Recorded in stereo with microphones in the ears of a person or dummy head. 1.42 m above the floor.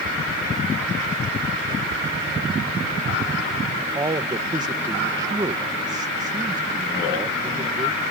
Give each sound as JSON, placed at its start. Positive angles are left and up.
{"t": 3.7, "sound": "a man speaking", "side_deg": -20}